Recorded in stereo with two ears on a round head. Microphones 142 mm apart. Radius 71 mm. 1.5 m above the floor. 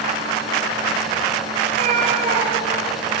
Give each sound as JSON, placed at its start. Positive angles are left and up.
{"t": 1.6, "sound": "a cat meowing", "side_deg": -50, "distance_m": 3.0}